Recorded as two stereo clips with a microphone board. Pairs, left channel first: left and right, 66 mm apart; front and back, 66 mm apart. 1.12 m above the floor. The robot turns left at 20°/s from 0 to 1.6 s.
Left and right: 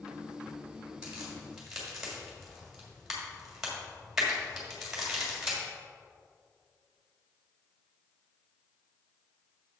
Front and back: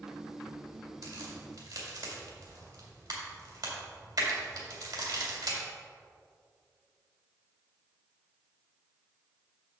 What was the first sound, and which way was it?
A crack, 160° right.